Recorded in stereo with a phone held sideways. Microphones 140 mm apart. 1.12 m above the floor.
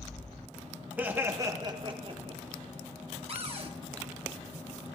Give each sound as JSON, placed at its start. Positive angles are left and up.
{"t": 1.0, "sound": "laughter", "side_deg": -10, "distance_m": 1.3}
{"t": 3.3, "sound": "a cupboard door", "side_deg": -45, "distance_m": 1.1}